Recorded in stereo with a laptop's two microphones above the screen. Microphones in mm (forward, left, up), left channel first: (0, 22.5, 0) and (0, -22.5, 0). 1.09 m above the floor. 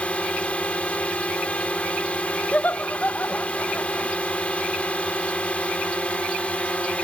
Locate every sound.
0.0 s a drone: 30° left (ahead or behind)
2.5 s laughter: 40° left (ahead or behind)